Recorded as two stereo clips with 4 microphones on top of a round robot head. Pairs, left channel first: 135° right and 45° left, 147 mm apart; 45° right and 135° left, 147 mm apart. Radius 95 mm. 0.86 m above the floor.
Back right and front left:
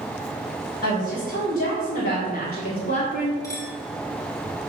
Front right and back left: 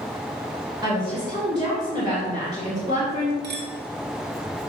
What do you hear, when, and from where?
0.8 s a woman speaking: 160° right, 3.5 m
3.4 s a clink: 155° left, 1.6 m